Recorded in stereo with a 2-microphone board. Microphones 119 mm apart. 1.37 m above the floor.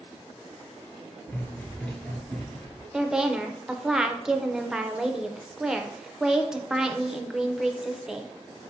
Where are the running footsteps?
15° left (ahead or behind), 1.4 m; by 2.8 s 5° left (ahead or behind), 1.7 m.